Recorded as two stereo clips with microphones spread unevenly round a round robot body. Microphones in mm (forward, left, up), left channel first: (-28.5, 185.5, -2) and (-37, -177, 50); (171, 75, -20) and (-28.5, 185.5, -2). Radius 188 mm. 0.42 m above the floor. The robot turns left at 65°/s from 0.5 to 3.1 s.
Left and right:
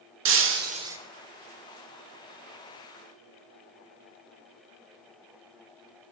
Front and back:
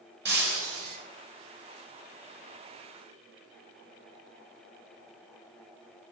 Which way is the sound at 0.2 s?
150° right.